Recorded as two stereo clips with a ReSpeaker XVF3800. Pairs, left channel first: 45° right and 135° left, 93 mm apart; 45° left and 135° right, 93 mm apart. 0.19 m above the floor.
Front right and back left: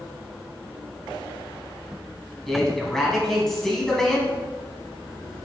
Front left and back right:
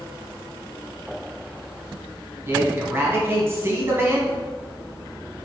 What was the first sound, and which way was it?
A man speaking, 125° right.